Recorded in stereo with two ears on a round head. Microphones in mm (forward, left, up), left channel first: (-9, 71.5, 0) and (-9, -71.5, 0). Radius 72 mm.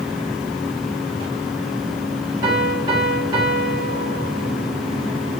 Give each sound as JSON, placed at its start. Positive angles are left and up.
{"t": 2.4, "sound": "a piano", "side_deg": -25, "distance_m": 1.7}